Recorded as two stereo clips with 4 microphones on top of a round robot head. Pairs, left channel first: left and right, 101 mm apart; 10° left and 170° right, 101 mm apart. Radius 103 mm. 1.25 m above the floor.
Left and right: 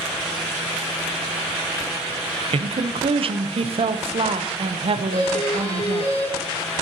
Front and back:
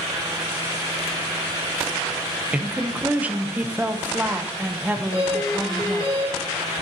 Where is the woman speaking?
95° right, 0.8 m.